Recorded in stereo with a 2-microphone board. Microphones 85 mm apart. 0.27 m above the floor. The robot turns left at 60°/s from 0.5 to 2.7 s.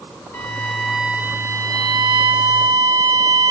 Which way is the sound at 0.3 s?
30° left.